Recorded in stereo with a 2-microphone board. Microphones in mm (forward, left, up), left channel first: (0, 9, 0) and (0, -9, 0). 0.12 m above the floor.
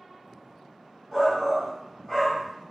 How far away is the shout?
About 1.5 m.